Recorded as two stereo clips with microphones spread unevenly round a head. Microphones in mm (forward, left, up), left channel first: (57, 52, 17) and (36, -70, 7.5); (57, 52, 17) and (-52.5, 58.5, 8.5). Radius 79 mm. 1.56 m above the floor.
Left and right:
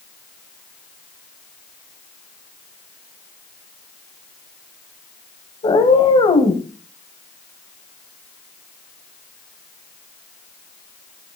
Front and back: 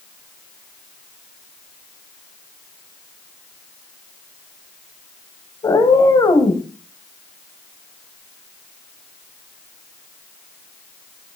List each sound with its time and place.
5.6 s a cat meowing: 40° left, 2.0 m